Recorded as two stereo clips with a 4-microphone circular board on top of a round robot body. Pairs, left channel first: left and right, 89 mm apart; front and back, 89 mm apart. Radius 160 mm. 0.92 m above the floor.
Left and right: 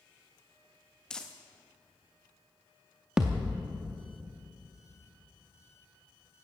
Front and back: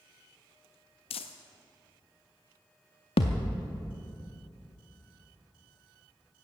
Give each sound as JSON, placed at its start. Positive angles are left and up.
{"t": 1.1, "sound": "crumpling", "azimuth_deg": 10, "distance_m": 0.5}
{"t": 3.2, "sound": "a thud", "azimuth_deg": -5, "distance_m": 0.5}